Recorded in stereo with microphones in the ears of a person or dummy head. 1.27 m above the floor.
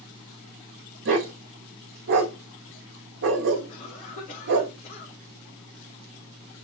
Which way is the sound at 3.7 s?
40° left (ahead or behind).